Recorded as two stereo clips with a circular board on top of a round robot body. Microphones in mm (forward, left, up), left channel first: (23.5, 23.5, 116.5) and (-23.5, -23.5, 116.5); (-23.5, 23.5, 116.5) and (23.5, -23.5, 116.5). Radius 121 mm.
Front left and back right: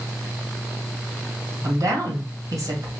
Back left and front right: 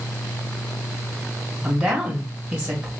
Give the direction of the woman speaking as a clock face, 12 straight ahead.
4 o'clock.